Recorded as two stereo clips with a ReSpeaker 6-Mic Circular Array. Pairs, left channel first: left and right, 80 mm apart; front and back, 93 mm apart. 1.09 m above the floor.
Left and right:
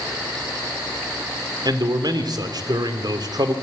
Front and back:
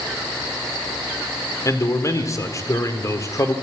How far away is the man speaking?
About 3.5 m.